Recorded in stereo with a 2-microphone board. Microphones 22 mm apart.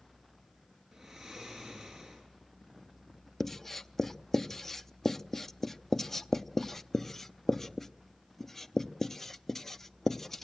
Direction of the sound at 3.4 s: 20° left (ahead or behind).